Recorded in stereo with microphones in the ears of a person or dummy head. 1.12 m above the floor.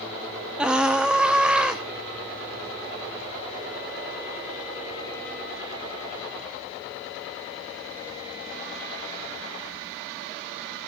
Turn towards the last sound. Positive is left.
turn(degrees=0)  # may be behind; listen again after turning